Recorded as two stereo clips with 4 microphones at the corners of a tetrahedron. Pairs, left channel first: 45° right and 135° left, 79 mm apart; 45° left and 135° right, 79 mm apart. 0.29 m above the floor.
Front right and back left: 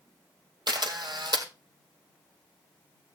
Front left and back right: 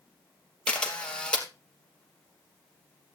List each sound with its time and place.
0.7 s a camera shutter: 120° left, 3 m